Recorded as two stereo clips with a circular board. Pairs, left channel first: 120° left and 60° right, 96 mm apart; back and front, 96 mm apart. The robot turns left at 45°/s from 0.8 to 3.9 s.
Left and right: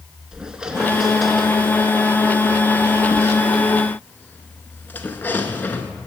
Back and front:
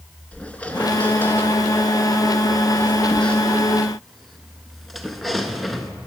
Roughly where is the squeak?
Behind right.